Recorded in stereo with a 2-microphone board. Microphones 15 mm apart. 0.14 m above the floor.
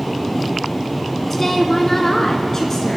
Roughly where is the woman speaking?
Centre.